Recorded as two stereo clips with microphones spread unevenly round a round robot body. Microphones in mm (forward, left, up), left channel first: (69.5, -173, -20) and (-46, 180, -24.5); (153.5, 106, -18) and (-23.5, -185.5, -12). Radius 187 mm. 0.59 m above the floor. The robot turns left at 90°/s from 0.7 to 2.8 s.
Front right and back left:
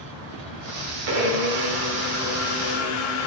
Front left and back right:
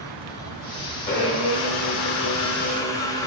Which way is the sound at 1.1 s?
135° left.